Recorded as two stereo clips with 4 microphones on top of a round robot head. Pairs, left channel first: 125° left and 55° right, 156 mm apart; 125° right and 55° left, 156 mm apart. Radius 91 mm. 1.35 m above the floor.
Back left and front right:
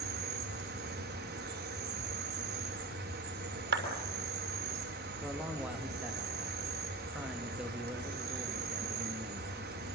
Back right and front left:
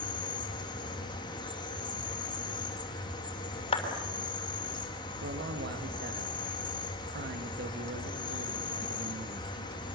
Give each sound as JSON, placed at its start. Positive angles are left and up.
{"t": 0.0, "sound": "an insect", "azimuth_deg": -65, "distance_m": 3.5}
{"t": 3.7, "sound": "a clap", "azimuth_deg": -70, "distance_m": 6.0}
{"t": 5.2, "sound": "a man speaking", "azimuth_deg": 30, "distance_m": 2.0}